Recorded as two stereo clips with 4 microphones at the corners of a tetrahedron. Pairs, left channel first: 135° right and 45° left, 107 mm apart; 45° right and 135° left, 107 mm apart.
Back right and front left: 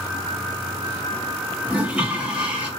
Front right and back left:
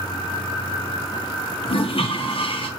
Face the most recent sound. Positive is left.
turn(degrees=-30)